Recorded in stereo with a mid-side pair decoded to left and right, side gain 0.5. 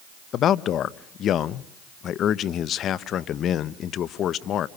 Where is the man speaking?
60° left, 0.7 m.